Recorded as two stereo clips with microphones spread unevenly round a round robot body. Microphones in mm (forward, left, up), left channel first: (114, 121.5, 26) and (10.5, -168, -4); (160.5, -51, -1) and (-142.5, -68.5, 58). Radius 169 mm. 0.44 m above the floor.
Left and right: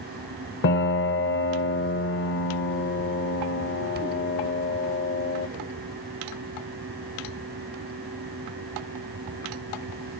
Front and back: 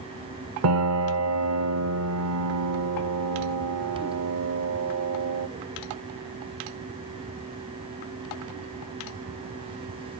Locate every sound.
0.6 s a piano: 130° left, 1.0 m